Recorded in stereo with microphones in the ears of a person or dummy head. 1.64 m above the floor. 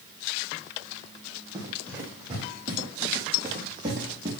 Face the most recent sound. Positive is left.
turn(degrees=-20)  # may be behind; listen again after turning